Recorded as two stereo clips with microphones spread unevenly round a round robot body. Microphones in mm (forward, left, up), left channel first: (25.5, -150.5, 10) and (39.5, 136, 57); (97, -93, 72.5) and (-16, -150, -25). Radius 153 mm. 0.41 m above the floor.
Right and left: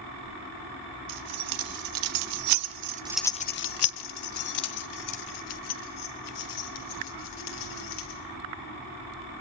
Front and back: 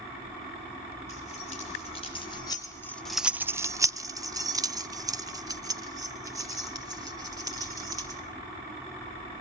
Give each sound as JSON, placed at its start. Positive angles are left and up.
{"t": 1.1, "sound": "keys jangling", "azimuth_deg": 100, "distance_m": 2.5}